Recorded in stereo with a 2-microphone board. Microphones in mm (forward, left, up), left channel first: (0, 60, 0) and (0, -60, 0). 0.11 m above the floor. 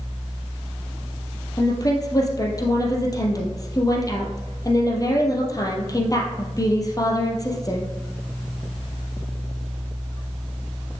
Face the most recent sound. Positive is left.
turn(degrees=30)  # may be behind; listen again after turning